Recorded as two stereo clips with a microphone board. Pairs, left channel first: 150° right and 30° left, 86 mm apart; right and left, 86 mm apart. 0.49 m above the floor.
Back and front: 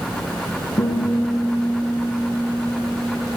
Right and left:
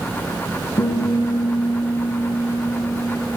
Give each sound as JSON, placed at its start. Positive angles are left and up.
{"t": 0.8, "sound": "a guitar", "azimuth_deg": -115, "distance_m": 8.5}